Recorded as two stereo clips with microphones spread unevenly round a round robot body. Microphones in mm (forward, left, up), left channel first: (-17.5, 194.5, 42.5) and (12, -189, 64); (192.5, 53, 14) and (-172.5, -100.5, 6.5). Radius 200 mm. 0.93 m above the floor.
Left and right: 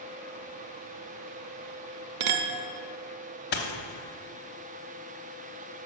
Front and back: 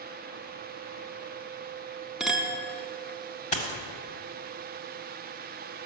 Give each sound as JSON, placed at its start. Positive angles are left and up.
{"t": 2.2, "sound": "a clink", "azimuth_deg": -70, "distance_m": 0.6}
{"t": 3.5, "sound": "a dropped coin", "azimuth_deg": 65, "distance_m": 0.8}